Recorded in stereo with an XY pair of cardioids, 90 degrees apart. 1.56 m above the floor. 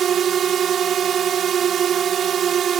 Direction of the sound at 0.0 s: 65° right.